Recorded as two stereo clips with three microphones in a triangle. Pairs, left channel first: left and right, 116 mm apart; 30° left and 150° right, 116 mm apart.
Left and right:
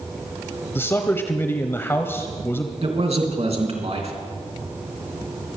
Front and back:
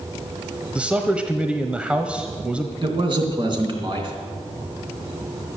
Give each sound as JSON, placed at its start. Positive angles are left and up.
{"t": 0.8, "sound": "a man speaking", "azimuth_deg": 140, "distance_m": 1.1}
{"t": 2.8, "sound": "a man speaking", "azimuth_deg": -110, "distance_m": 2.5}